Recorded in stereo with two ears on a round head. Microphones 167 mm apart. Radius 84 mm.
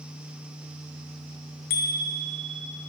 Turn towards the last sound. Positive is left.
turn(degrees=55)  # may be behind; listen again after turning